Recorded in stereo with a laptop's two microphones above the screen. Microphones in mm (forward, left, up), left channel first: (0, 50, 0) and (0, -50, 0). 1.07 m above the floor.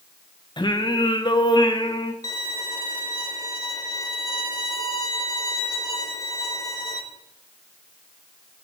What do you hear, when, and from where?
0.6 s singing: 50° left (ahead or behind), 0.7 m
2.2 s a violin: 40° left (ahead or behind), 1.3 m